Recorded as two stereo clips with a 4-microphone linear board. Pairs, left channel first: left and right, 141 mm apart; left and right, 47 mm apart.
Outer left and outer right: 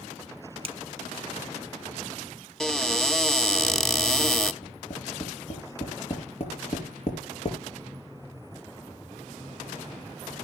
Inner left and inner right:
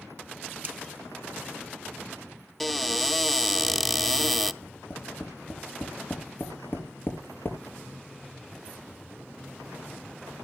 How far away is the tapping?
About 5.5 m.